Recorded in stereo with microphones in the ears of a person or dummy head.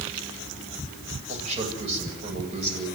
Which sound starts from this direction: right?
A man speaking, at 1.3 s.